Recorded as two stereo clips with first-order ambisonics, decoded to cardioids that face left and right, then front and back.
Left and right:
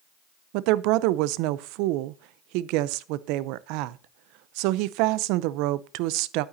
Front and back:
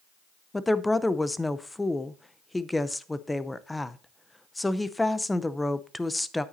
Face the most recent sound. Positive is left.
turn(degrees=-85)